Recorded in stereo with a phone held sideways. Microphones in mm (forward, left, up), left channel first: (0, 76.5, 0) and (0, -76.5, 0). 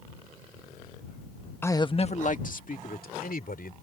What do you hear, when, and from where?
1.6 s a man speaking: 15° left (ahead or behind); by 3.7 s 80° left